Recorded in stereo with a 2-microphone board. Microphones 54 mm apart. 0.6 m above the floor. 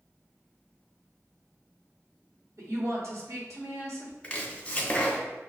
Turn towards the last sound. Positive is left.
turn(degrees=20)  # may be behind; listen again after turning